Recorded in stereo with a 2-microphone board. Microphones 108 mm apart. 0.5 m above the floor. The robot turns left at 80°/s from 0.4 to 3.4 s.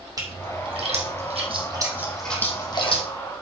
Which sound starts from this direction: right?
A splash, at 0.2 s.